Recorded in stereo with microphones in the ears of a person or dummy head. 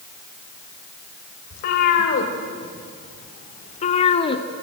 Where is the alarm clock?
I don't hear an alarm clock.